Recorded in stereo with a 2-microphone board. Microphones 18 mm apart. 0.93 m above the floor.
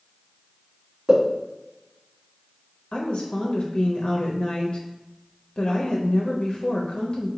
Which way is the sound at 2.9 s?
60° left (ahead or behind).